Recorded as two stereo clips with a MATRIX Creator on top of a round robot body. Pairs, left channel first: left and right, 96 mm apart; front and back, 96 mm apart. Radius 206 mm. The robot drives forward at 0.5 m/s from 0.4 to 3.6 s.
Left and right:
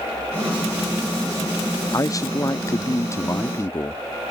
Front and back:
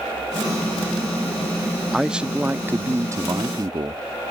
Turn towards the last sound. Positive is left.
turn(degrees=145)